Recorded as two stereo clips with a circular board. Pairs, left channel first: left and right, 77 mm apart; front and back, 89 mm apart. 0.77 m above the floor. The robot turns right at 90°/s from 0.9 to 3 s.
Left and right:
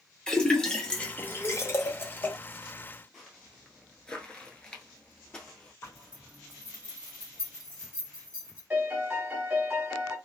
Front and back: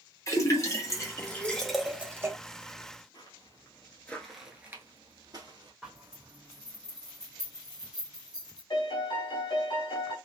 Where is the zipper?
100° left, 1.1 m.